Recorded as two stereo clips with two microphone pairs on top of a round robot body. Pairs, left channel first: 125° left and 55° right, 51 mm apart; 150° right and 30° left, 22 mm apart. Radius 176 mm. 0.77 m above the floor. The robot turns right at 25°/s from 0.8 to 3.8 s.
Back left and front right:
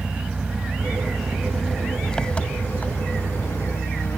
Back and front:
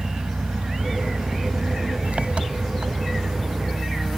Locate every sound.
0.0 s an engine running: 15° left; by 4.2 s 90° left